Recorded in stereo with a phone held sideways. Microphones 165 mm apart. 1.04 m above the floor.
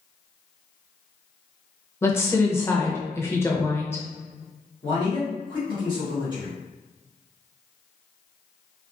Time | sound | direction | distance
2.0 | a woman speaking | 15° left (ahead or behind) | 0.7 m
4.8 | a man speaking | 30° left (ahead or behind) | 1.4 m